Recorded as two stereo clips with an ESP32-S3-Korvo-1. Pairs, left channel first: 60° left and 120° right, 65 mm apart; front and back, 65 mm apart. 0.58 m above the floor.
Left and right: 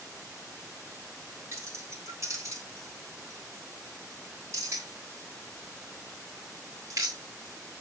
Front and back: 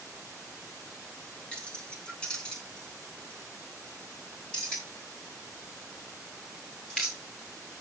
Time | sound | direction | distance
1.5 | keys jangling | 75° right | 3 m